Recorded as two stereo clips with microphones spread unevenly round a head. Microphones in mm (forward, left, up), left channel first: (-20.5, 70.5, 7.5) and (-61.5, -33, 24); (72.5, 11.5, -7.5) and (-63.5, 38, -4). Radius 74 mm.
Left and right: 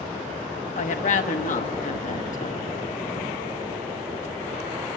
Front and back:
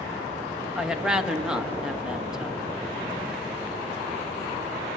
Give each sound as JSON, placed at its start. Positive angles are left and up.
{"t": 0.8, "sound": "a woman speaking", "azimuth_deg": 85, "distance_m": 1.1}